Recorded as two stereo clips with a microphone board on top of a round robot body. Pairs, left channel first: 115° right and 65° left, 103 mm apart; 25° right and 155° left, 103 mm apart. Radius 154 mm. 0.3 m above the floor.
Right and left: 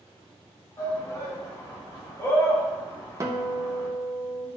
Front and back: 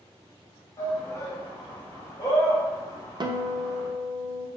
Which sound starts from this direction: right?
A shout, at 0.8 s.